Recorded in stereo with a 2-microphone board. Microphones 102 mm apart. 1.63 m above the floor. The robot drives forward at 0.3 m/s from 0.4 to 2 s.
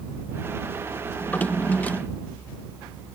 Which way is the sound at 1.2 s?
20° left (ahead or behind).